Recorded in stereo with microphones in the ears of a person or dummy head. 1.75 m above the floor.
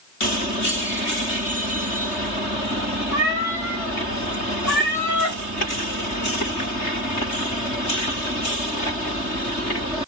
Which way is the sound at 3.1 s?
25° right (ahead or behind).